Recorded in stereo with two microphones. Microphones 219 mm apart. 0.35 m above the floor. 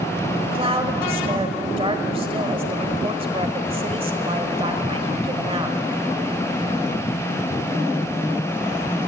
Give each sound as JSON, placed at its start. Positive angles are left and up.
{"t": 0.4, "sound": "a woman speaking", "side_deg": -25, "distance_m": 1.6}